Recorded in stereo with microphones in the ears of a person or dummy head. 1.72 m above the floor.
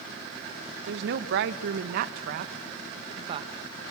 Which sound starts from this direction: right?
A woman speaking, at 0.9 s.